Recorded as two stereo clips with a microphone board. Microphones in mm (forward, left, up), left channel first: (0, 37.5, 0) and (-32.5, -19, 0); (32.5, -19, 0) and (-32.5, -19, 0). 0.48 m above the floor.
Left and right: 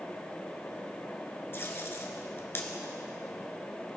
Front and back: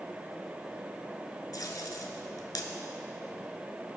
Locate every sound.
1.5 s tape being pulled: 10° left, 1.0 m